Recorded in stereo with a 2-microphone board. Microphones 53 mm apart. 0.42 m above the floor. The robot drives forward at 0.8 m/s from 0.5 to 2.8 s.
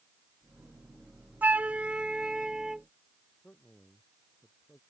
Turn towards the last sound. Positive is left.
turn(degrees=30)  # may be behind; listen again after turning